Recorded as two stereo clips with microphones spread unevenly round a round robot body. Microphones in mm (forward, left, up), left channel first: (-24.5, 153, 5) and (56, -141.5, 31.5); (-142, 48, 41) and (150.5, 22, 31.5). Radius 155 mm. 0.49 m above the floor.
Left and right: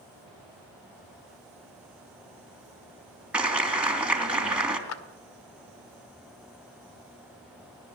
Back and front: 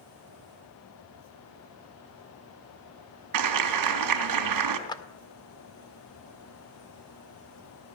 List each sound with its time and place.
3.3 s a clap: 15° left, 3 m
4.9 s a clap: 100° left, 1.6 m